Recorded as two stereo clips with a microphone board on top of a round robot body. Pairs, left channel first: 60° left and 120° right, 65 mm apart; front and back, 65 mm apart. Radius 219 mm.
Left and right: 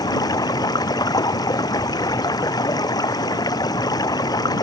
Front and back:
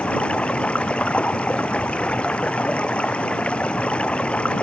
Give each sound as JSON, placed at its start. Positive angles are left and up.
{"t": 0.0, "sound": "running water", "azimuth_deg": 75}